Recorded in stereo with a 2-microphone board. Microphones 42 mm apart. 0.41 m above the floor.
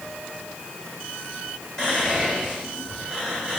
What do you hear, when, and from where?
1.8 s whispering: 15° left (ahead or behind), 1.8 m